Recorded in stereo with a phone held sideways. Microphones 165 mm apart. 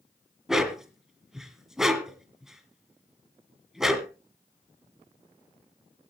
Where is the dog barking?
5° right (ahead or behind), 1.9 m.